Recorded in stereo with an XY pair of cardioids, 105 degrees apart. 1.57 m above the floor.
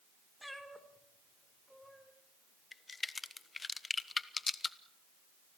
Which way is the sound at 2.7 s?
25° left.